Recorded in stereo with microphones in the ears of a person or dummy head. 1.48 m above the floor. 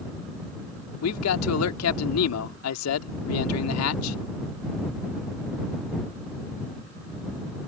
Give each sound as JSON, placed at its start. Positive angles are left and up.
{"t": 1.0, "sound": "a man speaking", "side_deg": 80}